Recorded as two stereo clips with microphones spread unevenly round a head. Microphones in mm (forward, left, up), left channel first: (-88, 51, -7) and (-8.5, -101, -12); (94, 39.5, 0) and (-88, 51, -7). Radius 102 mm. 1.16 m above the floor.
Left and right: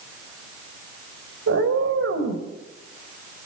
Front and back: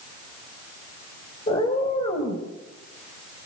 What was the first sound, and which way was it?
A cat meowing, 70° right.